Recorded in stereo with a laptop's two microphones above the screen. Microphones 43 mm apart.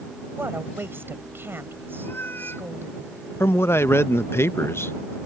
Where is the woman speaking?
60° right (ahead or behind).